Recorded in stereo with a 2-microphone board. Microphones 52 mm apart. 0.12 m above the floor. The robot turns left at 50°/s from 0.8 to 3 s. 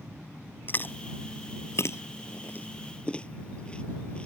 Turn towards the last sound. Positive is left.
turn(degrees=20)  # may be behind; listen again after turning